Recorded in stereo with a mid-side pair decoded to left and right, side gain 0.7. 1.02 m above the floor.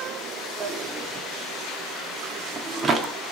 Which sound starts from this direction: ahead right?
A drawer, at 0.6 s.